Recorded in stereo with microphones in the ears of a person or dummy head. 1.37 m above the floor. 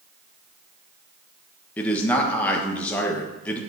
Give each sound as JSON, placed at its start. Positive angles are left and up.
{"t": 1.8, "sound": "a man speaking", "side_deg": 10, "distance_m": 1.3}